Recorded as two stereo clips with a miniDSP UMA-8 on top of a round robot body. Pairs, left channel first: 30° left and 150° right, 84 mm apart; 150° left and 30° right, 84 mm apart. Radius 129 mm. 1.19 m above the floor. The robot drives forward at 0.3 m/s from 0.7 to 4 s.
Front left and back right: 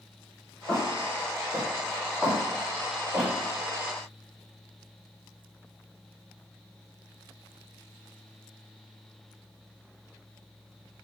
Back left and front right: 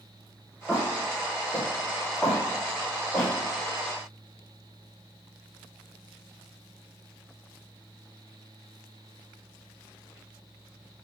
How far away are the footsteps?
About 1.2 m.